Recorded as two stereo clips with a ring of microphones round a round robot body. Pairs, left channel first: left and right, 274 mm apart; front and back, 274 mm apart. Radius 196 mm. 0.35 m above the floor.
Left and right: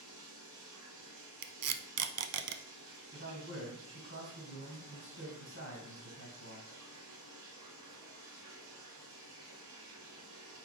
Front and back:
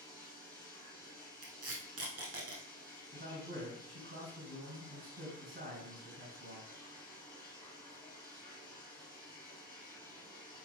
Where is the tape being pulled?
125° right, 0.5 m.